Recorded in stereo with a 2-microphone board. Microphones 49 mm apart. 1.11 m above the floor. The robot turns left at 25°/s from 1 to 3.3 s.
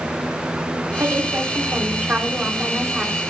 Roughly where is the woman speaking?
Behind right.